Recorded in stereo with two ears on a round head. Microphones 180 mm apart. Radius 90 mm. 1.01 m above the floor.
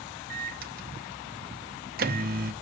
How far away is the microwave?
About 0.8 m.